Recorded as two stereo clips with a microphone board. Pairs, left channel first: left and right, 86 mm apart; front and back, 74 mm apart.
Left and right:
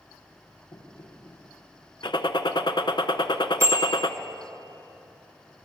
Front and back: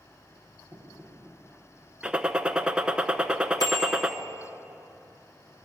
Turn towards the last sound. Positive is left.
turn(degrees=-35)